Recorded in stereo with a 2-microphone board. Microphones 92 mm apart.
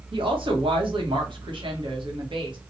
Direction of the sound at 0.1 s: 65° right (ahead or behind).